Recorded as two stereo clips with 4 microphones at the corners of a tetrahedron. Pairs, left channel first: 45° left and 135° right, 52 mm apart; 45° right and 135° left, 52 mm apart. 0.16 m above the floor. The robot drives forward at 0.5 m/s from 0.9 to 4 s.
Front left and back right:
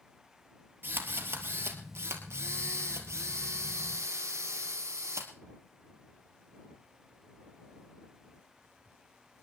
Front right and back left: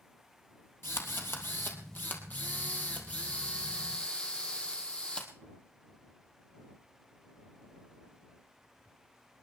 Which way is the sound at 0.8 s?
85° right.